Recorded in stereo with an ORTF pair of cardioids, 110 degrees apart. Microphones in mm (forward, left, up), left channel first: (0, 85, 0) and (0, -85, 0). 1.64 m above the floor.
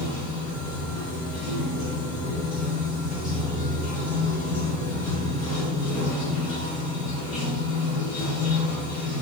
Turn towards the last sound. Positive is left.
turn(degrees=45)